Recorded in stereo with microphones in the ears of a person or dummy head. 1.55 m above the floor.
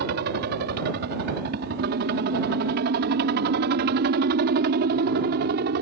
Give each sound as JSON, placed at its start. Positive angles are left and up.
{"t": 0.0, "sound": "a helicopter", "side_deg": -55}